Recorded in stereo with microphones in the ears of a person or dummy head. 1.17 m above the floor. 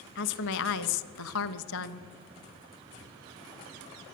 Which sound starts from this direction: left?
A woman speaking, at 0.1 s.